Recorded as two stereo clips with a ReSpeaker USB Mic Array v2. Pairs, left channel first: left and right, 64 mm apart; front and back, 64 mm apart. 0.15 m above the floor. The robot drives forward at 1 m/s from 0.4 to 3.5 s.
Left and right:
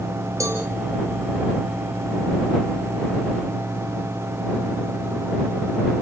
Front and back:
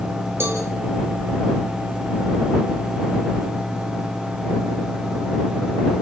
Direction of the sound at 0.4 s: 130° right.